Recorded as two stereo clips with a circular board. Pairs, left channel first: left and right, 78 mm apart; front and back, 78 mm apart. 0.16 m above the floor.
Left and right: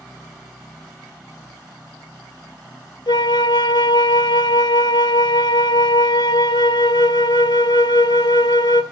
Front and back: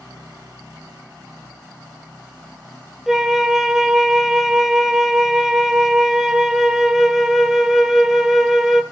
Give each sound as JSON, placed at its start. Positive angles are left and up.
{"t": 3.1, "sound": "a flute", "azimuth_deg": 95, "distance_m": 0.5}